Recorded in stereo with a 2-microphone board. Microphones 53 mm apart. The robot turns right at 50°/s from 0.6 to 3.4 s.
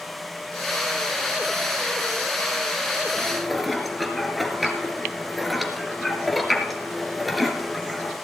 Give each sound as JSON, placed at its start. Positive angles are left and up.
{"t": 3.2, "sound": "dishes clattering", "side_deg": 10, "distance_m": 2.0}